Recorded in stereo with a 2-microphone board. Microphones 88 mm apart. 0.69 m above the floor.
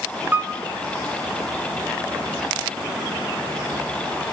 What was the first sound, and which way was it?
A piano, 20° right (ahead or behind).